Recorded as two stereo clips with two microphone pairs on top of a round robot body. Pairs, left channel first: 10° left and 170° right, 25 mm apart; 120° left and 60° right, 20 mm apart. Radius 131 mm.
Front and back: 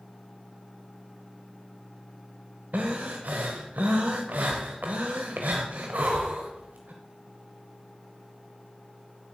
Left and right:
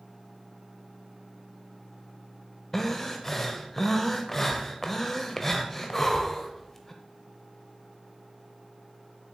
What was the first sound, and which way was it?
Breathing, 165° right.